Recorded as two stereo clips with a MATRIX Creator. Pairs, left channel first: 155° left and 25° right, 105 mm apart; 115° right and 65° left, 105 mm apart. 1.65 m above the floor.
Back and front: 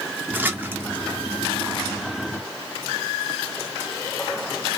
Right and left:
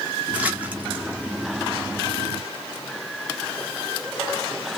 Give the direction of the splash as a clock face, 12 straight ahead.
12 o'clock.